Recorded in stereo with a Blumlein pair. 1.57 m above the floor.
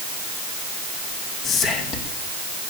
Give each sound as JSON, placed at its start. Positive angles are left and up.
{"t": 1.4, "sound": "whispering", "azimuth_deg": 25, "distance_m": 2.0}